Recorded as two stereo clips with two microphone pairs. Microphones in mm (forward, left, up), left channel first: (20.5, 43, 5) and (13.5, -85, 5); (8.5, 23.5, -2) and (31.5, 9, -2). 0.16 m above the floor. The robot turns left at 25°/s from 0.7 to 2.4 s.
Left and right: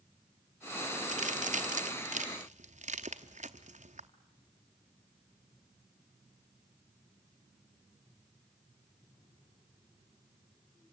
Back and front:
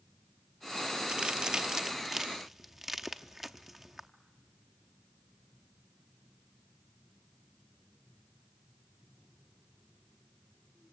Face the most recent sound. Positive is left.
turn(degrees=-105)